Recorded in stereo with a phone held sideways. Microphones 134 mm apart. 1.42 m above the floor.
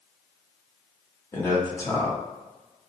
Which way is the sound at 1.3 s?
20° left (ahead or behind).